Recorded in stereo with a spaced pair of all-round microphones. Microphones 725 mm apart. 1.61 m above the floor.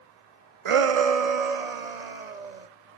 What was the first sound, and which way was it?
A shout, 45° right (ahead or behind).